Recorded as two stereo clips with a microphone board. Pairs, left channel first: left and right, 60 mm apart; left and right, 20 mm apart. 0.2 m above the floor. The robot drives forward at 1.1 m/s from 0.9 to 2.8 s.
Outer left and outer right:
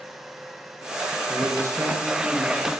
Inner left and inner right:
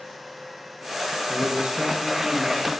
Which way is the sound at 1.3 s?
50° right (ahead or behind).